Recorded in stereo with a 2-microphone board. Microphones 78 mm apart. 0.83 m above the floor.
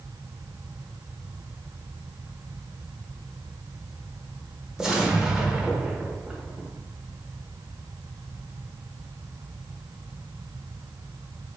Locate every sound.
4.8 s an explosion: 10° right (ahead or behind), 0.6 m